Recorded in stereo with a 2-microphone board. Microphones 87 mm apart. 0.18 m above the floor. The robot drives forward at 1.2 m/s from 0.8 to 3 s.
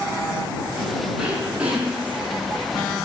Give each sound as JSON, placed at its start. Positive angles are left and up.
{"t": 1.2, "sound": "throat clearing", "side_deg": -15, "distance_m": 9.5}